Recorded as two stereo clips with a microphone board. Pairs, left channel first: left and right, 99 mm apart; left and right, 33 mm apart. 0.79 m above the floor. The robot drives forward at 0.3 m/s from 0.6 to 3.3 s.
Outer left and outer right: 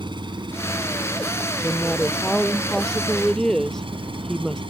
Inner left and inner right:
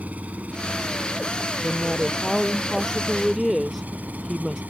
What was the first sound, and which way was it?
An engine running, 55° right (ahead or behind).